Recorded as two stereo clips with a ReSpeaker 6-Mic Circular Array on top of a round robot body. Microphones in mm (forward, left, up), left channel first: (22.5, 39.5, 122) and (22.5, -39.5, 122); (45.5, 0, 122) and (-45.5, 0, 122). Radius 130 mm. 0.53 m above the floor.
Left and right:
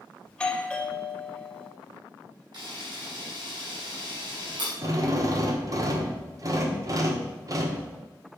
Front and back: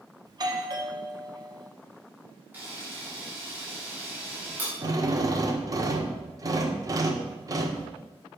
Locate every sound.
0.3 s a doorbell: 165° left, 1.6 m
2.5 s a camera shutter: 110° right, 5 m
4.8 s a drill: 130° right, 1.4 m